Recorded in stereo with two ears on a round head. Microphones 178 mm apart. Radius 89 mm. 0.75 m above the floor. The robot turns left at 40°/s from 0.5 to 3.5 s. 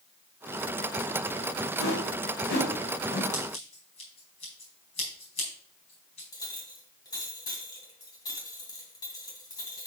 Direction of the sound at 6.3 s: 20° left (ahead or behind).